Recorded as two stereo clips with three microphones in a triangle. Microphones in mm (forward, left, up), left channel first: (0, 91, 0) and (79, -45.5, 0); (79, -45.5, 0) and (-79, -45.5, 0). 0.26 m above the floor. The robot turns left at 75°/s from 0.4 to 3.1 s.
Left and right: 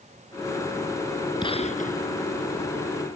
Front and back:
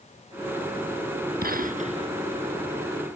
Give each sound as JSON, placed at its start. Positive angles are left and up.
{"t": 1.4, "sound": "a gunshot", "azimuth_deg": 180}